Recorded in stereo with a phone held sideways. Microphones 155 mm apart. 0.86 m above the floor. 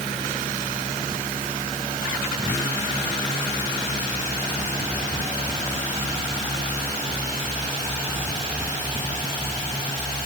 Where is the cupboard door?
No cupboard door in this recording.